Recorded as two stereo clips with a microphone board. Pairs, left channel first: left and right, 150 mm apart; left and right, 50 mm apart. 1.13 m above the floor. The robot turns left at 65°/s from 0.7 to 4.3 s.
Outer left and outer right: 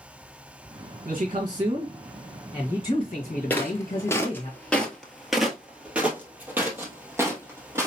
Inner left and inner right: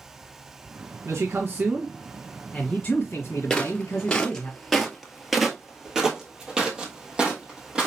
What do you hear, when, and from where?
1.1 s a man speaking: 105° right, 1.6 m; by 4.5 s 45° left, 1.6 m
3.5 s footsteps: 10° left (ahead or behind), 1.2 m; by 7.9 s 20° right (ahead or behind), 2 m